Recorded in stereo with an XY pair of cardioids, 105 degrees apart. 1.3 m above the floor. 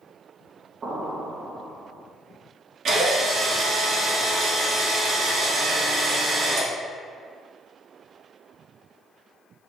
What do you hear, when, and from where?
0.8 s an explosion: 45° right, 1.1 m
2.9 s a drill: 55° right, 1.8 m